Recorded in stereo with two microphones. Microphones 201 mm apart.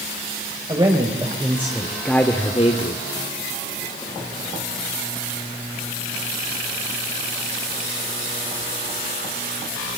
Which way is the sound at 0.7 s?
25° right (ahead or behind).